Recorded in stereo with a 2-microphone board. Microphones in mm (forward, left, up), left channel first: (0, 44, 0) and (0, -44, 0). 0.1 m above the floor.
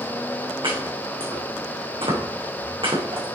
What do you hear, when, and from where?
0.6 s chopping: 75° right (ahead or behind), 4 m